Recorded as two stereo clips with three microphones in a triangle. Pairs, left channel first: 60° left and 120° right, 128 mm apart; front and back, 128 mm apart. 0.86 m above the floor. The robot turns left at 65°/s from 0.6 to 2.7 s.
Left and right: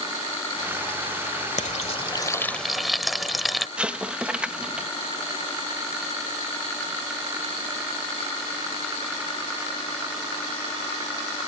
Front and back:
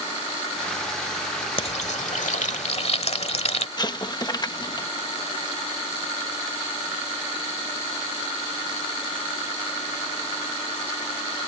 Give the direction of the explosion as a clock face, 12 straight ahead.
1 o'clock.